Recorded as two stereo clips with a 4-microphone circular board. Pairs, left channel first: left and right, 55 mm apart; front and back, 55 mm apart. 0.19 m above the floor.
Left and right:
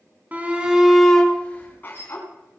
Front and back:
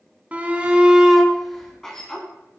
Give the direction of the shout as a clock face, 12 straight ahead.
4 o'clock.